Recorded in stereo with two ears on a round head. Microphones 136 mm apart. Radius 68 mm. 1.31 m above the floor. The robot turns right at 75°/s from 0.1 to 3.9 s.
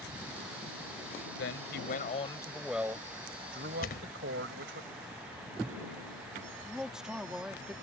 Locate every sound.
1.4 s a man speaking: 80° left; by 4.8 s 90° right
3.8 s a thud: 60° left (ahead or behind); by 4.2 s 65° left (ahead or behind)
6.6 s a man speaking: 5° right (ahead or behind)